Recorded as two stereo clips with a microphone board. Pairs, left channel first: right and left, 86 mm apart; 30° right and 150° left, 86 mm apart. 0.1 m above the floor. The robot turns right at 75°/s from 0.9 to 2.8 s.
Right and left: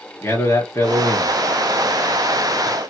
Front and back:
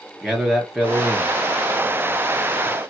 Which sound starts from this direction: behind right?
A man speaking, at 0.2 s.